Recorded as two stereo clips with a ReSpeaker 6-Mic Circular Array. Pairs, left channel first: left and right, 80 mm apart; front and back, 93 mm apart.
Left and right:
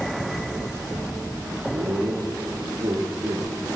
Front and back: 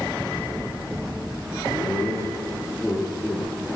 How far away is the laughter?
About 6 m.